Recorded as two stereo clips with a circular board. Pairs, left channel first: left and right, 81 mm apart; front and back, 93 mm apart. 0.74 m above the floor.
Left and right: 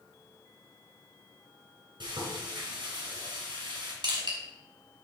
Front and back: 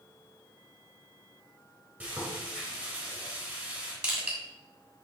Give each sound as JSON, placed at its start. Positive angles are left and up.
{"t": 2.0, "sound": "frying", "azimuth_deg": -100, "distance_m": 3.0}
{"t": 4.0, "sound": "crushing", "azimuth_deg": -100, "distance_m": 2.5}